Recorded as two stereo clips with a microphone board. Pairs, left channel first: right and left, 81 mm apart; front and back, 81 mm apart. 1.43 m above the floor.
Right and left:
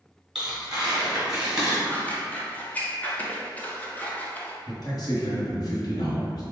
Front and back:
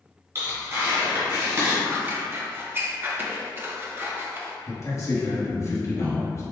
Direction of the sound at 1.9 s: 145° right.